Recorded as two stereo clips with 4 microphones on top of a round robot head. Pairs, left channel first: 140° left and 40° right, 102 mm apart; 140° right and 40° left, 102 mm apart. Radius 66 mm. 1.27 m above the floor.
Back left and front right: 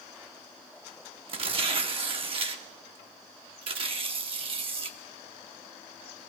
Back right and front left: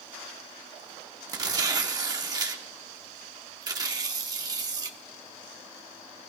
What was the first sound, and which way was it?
Tearing paper, 10° right.